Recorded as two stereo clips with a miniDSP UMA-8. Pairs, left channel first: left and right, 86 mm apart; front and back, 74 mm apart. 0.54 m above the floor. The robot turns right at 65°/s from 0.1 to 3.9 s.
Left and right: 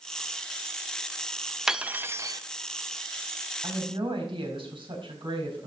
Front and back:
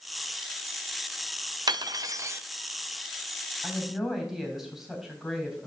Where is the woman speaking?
105° right, 3.5 m; by 5.7 s 90° right, 3.5 m.